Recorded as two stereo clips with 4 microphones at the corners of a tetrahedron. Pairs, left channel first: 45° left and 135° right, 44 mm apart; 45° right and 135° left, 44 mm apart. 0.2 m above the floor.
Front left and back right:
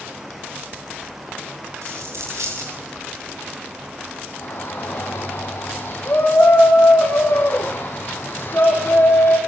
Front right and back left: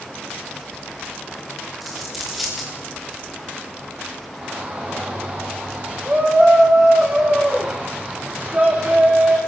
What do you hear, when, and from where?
1.8 s a dropped coin: 135° right, 8.5 m
4.4 s a shout: 85° left, 10 m